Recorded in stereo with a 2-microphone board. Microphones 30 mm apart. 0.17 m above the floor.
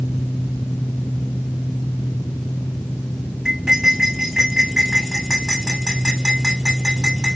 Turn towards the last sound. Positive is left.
turn(degrees=-20)  # may be behind; listen again after turning